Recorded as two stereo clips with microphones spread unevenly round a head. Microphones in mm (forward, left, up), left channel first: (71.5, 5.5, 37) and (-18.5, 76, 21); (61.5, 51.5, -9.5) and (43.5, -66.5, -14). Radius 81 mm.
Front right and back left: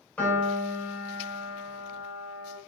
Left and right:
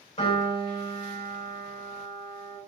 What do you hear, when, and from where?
0.2 s a piano: 45° left, 2.5 m